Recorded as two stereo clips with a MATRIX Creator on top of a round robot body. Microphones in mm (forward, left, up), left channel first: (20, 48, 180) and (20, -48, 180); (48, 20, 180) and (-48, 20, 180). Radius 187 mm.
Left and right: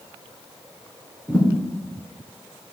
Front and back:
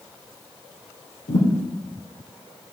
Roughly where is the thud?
Ahead.